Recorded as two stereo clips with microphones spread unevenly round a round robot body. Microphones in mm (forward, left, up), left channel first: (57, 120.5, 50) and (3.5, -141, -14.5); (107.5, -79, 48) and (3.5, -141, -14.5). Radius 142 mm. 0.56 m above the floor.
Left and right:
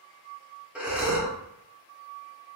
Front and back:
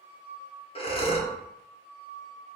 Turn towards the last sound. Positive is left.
turn(degrees=-30)